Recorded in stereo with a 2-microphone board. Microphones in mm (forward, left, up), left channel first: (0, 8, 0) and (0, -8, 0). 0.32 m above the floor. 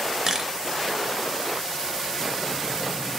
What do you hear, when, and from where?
0.3 s a camera shutter: 30° right (ahead or behind), 0.6 m